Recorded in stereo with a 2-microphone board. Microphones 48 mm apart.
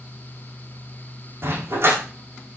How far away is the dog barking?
About 5.5 m.